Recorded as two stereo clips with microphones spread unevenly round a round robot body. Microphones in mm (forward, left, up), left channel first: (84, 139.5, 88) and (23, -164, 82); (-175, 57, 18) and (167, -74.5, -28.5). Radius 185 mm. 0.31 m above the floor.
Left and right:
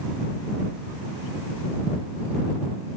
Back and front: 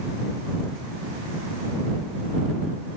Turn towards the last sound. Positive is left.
No sound to turn to.